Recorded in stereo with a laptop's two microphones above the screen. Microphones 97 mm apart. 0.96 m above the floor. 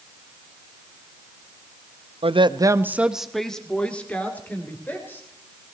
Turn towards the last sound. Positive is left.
turn(degrees=20)  # may be behind; listen again after turning